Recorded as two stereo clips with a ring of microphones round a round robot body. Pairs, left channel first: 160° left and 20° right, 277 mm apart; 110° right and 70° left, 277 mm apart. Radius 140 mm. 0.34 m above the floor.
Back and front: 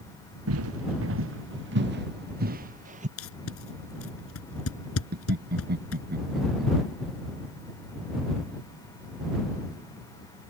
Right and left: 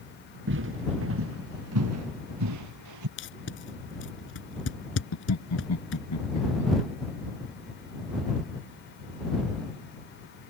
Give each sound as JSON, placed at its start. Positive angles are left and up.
{"t": 0.5, "sound": "footsteps", "azimuth_deg": 20}
{"t": 3.2, "sound": "tape being pulled", "azimuth_deg": -160}
{"t": 5.1, "sound": "laughter", "azimuth_deg": -80}